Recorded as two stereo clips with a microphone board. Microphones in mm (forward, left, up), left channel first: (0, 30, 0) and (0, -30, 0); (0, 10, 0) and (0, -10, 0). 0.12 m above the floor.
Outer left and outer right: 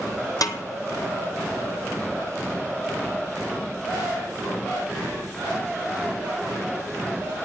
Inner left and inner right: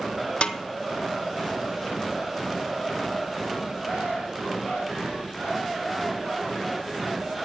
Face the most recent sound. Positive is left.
turn(degrees=80)